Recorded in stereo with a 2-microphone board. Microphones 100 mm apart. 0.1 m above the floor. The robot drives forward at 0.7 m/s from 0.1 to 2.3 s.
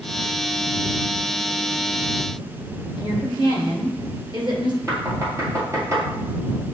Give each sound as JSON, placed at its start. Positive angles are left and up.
{"t": 3.0, "sound": "a woman speaking", "side_deg": -50, "distance_m": 1.8}
{"t": 4.9, "sound": "knocking", "side_deg": -30, "distance_m": 2.0}